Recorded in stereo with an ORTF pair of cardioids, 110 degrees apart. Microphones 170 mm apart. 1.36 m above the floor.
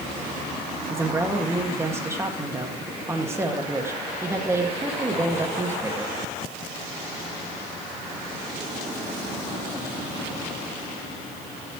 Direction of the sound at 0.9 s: 15° right.